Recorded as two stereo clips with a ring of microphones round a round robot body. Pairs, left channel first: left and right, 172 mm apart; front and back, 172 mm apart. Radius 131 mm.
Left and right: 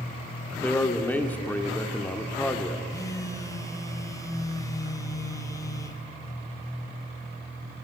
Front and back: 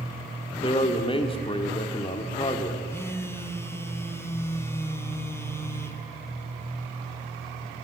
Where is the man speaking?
20° left, 1.2 m.